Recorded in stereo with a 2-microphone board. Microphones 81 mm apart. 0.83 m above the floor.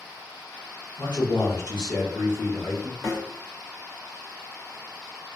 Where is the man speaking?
80° left, 1.6 m.